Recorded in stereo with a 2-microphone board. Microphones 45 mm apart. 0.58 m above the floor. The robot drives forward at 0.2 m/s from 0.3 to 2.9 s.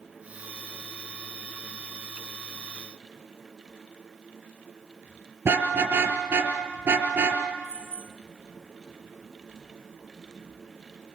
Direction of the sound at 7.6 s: 85° right.